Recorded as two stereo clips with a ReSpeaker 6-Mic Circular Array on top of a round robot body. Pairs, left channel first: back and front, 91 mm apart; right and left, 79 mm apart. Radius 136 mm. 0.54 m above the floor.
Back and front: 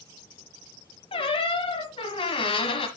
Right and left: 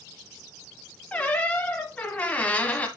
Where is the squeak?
165° right, 1.0 m.